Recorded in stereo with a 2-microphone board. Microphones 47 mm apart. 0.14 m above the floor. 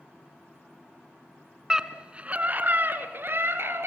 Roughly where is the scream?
Centre.